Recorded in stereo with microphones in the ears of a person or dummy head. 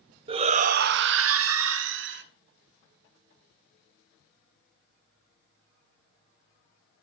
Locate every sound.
0.3 s a shout: 30° right (ahead or behind), 0.8 m; by 2.2 s 60° right (ahead or behind), 1.3 m